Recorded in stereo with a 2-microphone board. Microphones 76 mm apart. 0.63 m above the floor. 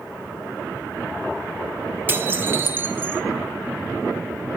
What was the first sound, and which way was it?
Dishes clattering, 25° right (ahead or behind).